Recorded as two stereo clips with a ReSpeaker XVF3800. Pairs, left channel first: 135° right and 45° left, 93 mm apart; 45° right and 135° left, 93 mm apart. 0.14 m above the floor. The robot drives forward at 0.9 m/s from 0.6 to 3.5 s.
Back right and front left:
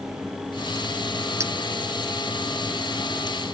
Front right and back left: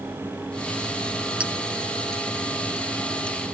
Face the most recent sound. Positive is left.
turn(degrees=155)